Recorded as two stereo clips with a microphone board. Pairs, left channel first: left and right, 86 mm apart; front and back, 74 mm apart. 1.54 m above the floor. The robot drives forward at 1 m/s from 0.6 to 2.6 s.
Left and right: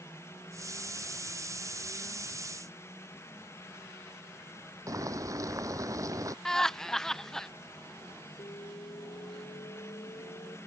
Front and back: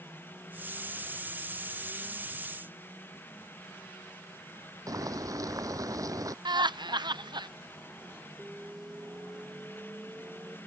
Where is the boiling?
140° right.